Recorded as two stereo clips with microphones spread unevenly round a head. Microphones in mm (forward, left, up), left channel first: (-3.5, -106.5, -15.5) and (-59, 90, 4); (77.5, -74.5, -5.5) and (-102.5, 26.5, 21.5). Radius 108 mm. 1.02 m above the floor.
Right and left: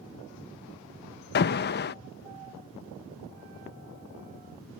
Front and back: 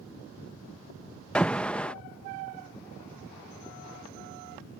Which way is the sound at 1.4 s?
110° right.